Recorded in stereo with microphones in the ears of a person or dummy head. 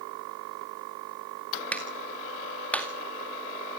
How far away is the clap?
About 2 m.